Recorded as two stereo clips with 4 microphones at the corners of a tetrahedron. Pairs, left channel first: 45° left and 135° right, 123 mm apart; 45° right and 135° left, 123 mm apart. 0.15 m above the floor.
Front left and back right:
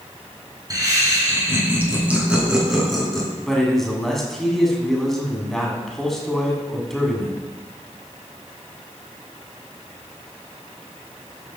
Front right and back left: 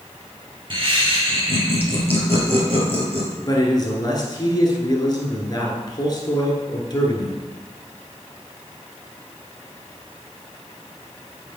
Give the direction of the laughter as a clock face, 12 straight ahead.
6 o'clock.